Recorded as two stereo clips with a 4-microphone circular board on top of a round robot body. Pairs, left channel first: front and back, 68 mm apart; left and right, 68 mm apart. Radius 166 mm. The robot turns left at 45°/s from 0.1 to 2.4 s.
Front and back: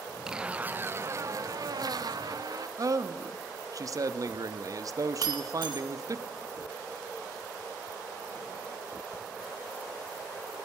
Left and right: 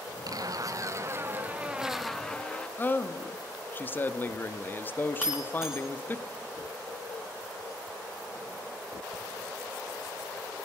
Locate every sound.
0.3 s a zipper: 100° right, 0.8 m; by 2.7 s 165° left, 0.8 m
2.8 s a man speaking: 150° left, 1.0 m
5.2 s breaking glass: 175° right, 0.8 m